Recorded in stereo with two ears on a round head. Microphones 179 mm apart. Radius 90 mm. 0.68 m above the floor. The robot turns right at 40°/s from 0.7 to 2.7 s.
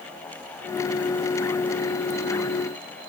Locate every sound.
Only background noise.